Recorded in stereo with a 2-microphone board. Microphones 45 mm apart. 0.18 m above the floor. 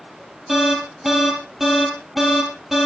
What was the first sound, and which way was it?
An alarm, 5° right (ahead or behind).